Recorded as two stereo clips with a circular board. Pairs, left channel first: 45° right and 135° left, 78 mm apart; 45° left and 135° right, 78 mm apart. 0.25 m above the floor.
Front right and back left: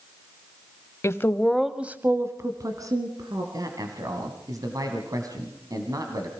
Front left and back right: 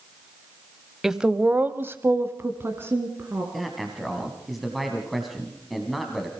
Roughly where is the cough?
No cough in this recording.